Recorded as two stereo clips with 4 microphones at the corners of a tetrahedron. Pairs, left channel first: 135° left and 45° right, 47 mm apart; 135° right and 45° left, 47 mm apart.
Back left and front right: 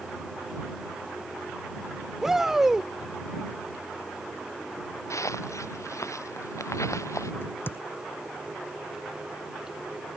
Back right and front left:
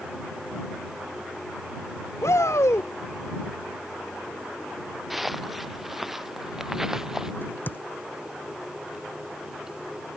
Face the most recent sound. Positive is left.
turn(degrees=175)